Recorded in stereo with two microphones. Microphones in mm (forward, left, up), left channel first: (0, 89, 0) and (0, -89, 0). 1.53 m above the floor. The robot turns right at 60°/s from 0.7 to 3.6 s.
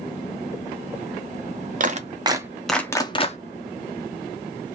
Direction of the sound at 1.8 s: 50° right (ahead or behind).